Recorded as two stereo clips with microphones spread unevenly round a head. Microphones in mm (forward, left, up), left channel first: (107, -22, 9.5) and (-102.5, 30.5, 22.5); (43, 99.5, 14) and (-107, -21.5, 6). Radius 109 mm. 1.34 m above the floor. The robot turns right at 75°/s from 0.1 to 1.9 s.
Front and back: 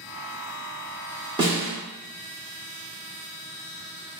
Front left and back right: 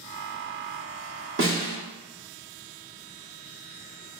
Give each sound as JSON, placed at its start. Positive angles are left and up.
{"t": 1.4, "sound": "a snare drum", "azimuth_deg": -130, "distance_m": 1.4}